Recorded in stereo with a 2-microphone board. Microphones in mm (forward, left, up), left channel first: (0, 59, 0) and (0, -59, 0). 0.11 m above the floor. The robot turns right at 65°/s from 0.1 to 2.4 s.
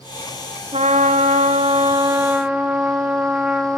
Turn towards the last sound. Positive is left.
turn(degrees=-10)